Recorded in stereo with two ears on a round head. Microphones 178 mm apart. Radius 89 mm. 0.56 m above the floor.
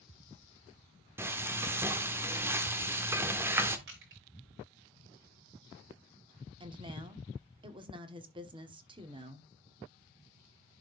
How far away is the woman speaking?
About 1.2 m.